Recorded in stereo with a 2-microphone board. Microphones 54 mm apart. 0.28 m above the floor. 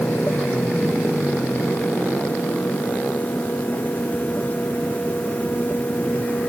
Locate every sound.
Only background noise.